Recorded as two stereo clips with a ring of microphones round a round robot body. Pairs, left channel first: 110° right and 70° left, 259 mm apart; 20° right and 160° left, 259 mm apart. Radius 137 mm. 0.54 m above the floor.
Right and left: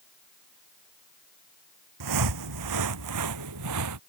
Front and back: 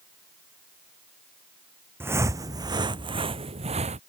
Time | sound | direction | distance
2.0 | footsteps | 75° left | ?